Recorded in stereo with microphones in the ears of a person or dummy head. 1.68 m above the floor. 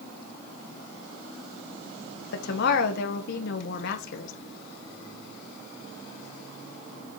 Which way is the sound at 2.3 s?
65° left (ahead or behind).